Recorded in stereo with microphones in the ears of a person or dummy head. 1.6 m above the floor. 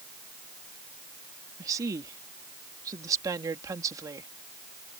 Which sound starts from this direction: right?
A woman speaking, at 1.6 s.